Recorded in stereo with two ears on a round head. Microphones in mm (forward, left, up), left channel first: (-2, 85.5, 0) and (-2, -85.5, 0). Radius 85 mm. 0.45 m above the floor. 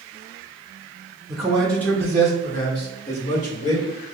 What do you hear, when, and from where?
1.3 s a man speaking: 5° right (ahead or behind), 1.2 m; by 3.9 s 40° left (ahead or behind), 1.7 m